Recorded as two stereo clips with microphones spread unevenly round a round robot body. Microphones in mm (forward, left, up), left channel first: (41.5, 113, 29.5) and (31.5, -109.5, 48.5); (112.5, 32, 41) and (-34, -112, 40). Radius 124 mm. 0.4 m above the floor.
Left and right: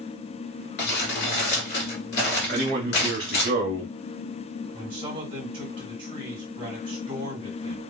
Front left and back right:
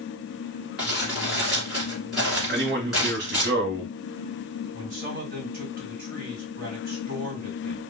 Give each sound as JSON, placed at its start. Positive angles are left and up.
{"t": 0.8, "sound": "crumpling", "azimuth_deg": 135, "distance_m": 1.4}
{"t": 2.5, "sound": "a man speaking", "azimuth_deg": -140, "distance_m": 1.4}
{"t": 4.7, "sound": "a man speaking", "azimuth_deg": -155, "distance_m": 1.8}